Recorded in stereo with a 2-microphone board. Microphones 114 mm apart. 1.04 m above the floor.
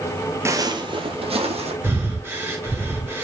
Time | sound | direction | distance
0.5 | footsteps | 25° right (ahead or behind) | 1.1 m
1.8 | breathing | 20° right (ahead or behind) | 1.9 m